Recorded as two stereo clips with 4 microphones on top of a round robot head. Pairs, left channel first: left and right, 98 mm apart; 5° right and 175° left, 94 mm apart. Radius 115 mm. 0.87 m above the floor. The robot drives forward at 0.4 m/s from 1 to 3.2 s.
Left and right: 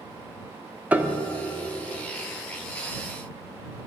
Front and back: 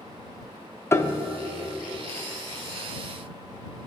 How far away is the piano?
About 0.9 m.